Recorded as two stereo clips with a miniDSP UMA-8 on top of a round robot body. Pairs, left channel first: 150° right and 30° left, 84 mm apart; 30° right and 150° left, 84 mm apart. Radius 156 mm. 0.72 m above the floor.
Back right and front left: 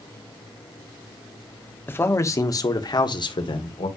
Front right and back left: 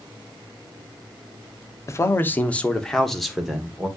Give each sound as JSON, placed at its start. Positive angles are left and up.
{"t": 1.9, "sound": "a man speaking", "azimuth_deg": -85, "distance_m": 1.5}